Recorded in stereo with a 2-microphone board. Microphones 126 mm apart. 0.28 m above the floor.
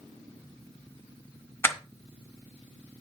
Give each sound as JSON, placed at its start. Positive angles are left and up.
{"t": 1.6, "sound": "crushing", "side_deg": 20, "distance_m": 1.2}